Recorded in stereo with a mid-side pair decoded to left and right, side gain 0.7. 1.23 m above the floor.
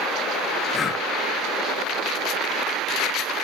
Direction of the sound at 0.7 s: 25° left.